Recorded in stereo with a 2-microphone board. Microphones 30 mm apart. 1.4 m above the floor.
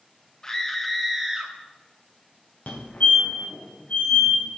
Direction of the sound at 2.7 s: 50° left (ahead or behind).